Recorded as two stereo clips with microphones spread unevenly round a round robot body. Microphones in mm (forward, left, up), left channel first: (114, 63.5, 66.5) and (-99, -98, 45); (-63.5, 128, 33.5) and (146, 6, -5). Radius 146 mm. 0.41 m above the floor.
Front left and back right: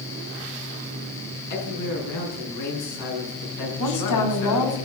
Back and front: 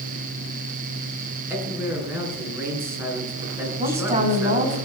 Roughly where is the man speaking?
Ahead left.